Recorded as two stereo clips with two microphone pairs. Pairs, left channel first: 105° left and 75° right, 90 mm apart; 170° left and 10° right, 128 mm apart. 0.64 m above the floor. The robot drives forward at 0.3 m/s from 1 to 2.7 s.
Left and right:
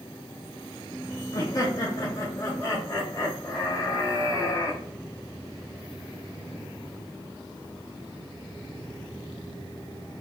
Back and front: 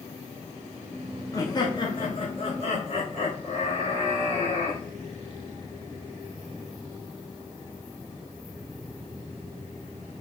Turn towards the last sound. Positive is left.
turn(degrees=155)